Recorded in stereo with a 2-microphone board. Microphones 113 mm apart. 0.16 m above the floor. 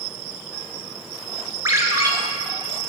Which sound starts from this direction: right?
A ringtone, at 1.6 s.